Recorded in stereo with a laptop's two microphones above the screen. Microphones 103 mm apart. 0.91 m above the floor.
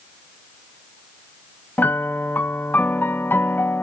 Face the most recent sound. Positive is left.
turn(degrees=20)  # may be behind; listen again after turning